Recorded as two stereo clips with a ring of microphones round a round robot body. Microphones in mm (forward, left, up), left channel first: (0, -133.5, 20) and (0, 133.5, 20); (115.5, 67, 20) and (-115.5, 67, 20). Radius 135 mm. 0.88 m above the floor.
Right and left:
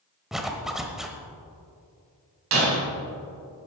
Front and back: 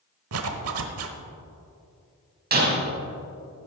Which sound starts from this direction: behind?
A zipper, at 0.3 s.